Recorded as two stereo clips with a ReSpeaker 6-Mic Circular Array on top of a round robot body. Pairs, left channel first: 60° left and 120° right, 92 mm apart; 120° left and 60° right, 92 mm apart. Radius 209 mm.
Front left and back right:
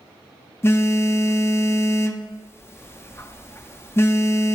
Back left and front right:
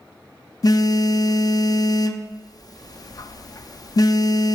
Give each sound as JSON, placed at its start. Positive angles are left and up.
{"t": 0.6, "sound": "a phone buzzing", "azimuth_deg": 110, "distance_m": 0.7}